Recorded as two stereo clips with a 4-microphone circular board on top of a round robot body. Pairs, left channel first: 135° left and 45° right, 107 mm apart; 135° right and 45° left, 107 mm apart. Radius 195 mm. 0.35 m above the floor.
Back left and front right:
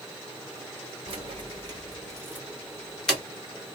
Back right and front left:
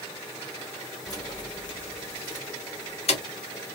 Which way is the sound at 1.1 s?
80° right.